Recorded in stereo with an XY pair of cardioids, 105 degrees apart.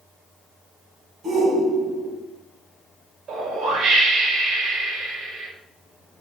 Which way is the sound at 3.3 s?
55° right.